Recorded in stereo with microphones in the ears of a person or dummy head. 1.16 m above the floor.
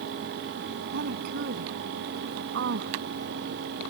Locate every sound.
0.9 s a woman speaking: 60° right (ahead or behind)